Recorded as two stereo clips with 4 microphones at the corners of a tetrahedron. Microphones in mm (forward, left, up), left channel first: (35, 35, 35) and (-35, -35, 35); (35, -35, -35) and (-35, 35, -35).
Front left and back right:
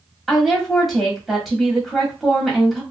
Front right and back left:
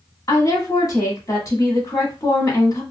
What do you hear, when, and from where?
0.3 s a woman speaking: 45° right, 1.4 m